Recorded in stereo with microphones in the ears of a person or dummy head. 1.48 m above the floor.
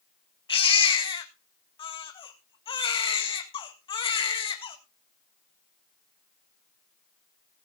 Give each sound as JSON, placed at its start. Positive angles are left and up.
{"t": 0.5, "sound": "a baby crying", "side_deg": 30, "distance_m": 1.7}